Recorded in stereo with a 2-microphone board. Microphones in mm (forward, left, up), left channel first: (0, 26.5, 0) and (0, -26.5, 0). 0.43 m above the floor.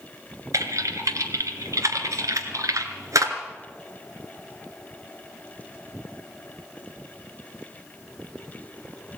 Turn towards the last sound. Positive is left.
turn(degrees=-75)  # may be behind; listen again after turning